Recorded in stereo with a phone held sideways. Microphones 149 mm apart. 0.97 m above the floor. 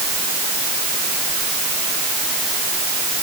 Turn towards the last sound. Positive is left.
No sound to turn to.